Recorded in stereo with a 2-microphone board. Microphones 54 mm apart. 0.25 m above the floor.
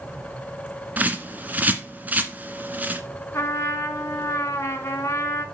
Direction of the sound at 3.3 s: 55° left (ahead or behind).